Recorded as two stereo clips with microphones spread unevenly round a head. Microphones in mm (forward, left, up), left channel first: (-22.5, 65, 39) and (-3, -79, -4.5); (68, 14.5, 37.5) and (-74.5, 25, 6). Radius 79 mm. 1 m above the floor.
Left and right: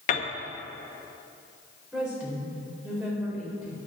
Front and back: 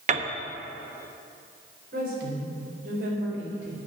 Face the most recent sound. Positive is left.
turn(degrees=-165)